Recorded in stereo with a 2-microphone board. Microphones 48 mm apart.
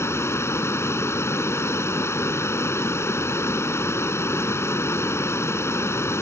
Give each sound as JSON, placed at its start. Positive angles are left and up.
{"t": 0.0, "sound": "running water", "side_deg": 65}